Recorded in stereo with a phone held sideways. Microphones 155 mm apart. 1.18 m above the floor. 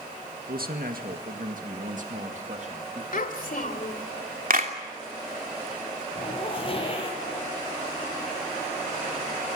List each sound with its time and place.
0.5 s a man speaking: 70° right (ahead or behind), 1.9 m; by 3.0 s 45° right (ahead or behind), 2.5 m
3.1 s a child speaking: 60° left (ahead or behind), 2.5 m
4.5 s a clap: 65° right (ahead or behind), 3 m
6.2 s a zipper: 35° left (ahead or behind), 6.5 m